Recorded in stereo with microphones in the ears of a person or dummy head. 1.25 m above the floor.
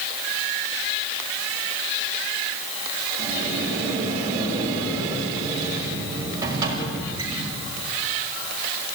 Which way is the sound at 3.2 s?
15° right (ahead or behind).